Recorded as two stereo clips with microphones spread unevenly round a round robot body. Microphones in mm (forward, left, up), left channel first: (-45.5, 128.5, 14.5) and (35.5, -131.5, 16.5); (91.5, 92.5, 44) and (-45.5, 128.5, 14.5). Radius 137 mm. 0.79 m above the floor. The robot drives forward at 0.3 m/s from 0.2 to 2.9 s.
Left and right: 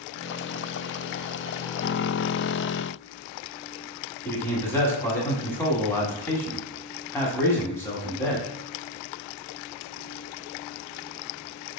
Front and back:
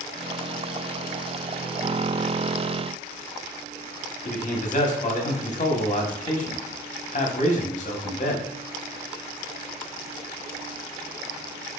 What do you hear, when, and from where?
4.2 s a man speaking: 25° left, 1.1 m